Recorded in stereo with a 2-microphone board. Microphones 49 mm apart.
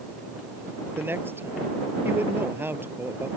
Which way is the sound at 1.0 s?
45° right (ahead or behind).